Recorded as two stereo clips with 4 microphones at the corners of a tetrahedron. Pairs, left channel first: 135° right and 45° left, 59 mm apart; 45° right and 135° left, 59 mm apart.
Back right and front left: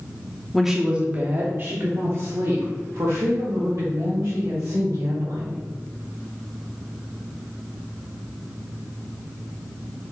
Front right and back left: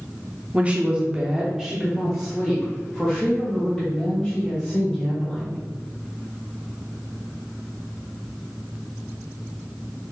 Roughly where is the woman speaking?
Behind left.